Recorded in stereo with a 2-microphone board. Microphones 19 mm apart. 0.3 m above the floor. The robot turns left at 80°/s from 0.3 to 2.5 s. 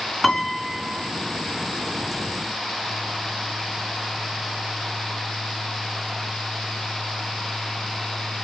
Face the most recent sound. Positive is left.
turn(degrees=-165)